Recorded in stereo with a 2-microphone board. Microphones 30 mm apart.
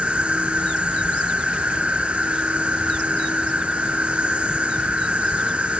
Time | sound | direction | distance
0.0 | an insect | 45° right (ahead or behind) | 0.8 m